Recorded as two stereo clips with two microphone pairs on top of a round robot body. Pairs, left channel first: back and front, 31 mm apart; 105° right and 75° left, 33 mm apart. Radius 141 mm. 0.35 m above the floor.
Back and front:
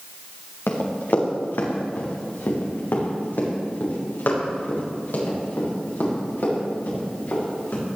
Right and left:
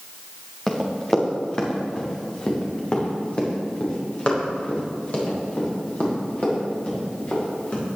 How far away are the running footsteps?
About 3.5 m.